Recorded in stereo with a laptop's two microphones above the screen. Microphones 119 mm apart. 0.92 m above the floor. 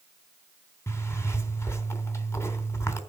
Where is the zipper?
25° left (ahead or behind), 3 m.